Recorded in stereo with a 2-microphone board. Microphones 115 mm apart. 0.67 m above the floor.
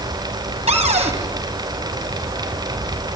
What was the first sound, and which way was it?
A cupboard door, 70° right (ahead or behind).